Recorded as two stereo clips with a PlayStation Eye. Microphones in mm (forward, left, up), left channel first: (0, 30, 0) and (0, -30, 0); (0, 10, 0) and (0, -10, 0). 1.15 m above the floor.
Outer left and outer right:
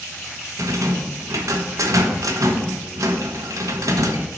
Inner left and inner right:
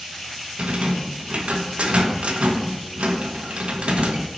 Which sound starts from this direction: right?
A rattle, at 0.6 s.